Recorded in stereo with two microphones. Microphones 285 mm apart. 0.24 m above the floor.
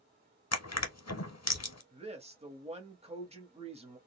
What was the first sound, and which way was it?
Crushing, 65° left (ahead or behind).